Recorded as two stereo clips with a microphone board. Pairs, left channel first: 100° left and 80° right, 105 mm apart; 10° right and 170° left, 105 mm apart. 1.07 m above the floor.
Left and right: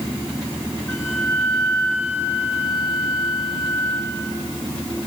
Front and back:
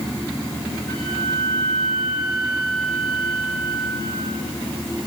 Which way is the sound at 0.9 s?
35° left.